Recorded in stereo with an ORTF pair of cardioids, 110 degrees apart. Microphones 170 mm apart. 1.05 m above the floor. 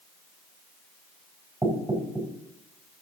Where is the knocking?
10° right, 4 m.